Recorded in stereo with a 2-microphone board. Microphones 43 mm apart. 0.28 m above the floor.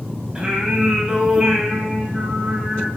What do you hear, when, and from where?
0.3 s singing: 20° right (ahead or behind), 0.9 m